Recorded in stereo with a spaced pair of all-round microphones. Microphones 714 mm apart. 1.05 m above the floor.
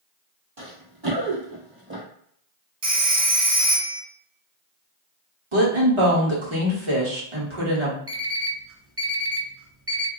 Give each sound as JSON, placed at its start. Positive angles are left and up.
{"t": 0.6, "sound": "running footsteps", "side_deg": -50, "distance_m": 1.7}
{"t": 2.8, "sound": "a phone ringing", "side_deg": -70, "distance_m": 1.0}
{"t": 5.5, "sound": "a woman speaking", "side_deg": -45, "distance_m": 1.3}
{"t": 8.1, "sound": "an alarm clock", "side_deg": -20, "distance_m": 0.6}